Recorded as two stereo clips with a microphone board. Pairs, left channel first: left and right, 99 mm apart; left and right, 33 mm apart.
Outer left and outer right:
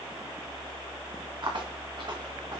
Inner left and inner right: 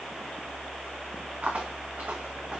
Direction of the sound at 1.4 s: 55° right (ahead or behind).